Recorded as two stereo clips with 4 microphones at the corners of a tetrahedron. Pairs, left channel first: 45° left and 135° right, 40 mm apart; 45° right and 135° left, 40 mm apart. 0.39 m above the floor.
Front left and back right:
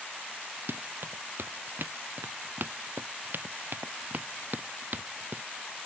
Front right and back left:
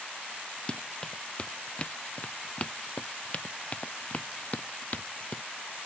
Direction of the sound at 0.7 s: 110° right.